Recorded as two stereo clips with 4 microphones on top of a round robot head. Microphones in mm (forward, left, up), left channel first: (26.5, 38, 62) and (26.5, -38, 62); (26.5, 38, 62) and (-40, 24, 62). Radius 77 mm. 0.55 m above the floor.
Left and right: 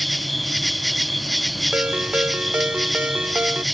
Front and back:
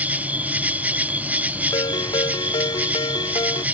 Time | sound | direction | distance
0.0 | an insect | straight behind | ?
1.7 | a ringtone | 15° right | ?